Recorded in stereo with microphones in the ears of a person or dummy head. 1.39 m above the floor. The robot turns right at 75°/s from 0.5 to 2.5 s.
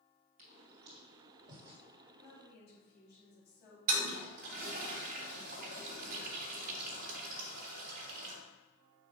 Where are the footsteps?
50° right (ahead or behind), 2 m; by 1.8 s 5° right (ahead or behind), 2.5 m.